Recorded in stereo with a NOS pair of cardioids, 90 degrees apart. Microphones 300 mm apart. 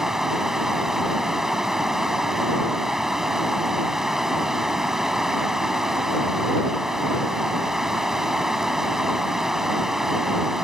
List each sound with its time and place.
0.0 s running water: straight ahead